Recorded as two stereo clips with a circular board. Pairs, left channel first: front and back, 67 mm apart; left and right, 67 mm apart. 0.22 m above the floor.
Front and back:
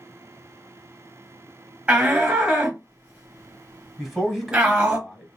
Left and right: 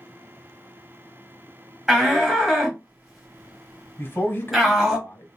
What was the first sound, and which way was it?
A shout, 165° right.